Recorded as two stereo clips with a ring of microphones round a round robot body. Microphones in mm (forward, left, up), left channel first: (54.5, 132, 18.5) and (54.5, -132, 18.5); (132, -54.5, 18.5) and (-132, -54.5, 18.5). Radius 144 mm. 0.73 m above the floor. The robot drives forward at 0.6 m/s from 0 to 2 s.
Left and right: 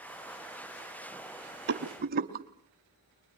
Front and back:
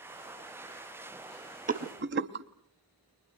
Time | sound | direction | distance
1.7 | a rattle | 130° right | 0.7 m